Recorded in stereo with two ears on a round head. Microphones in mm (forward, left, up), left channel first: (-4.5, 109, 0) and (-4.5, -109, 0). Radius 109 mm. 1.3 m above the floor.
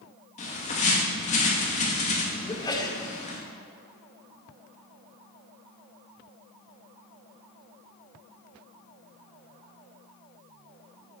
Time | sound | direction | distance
0.4 | a bird | 30° left (ahead or behind) | 2.5 m
2.5 | a sneeze | 15° left (ahead or behind) | 1.8 m